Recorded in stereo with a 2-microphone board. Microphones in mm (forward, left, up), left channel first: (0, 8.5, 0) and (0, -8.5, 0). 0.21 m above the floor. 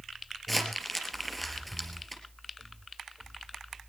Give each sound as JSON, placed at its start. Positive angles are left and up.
{"t": 0.5, "sound": "crumpling", "side_deg": 5, "distance_m": 4.0}